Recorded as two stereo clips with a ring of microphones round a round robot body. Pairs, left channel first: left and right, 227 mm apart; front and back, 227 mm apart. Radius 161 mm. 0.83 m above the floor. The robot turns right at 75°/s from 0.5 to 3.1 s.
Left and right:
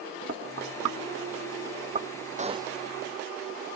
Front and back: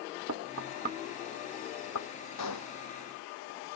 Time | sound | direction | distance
0.3 | knocking | 145° right | ?
2.4 | a gunshot | 35° right | ?